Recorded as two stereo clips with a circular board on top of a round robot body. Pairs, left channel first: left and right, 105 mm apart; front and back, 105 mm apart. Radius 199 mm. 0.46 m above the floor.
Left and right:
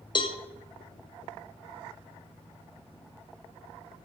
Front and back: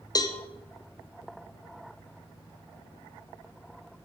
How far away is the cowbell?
About 0.8 m.